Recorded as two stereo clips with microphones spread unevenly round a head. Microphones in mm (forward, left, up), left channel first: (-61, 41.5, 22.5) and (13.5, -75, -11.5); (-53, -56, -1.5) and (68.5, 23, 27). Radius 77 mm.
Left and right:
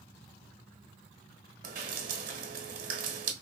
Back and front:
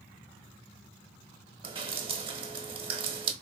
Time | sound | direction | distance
1.6 | dripping | 25° right | 0.7 m